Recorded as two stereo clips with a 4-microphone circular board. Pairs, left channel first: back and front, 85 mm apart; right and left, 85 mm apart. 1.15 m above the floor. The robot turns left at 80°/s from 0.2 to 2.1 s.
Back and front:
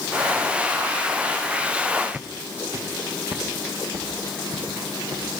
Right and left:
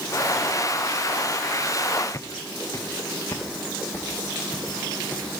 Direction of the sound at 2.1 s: 65° right.